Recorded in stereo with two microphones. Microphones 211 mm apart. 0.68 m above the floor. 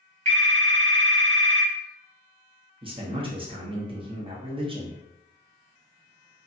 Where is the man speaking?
25° right (ahead or behind), 0.6 m.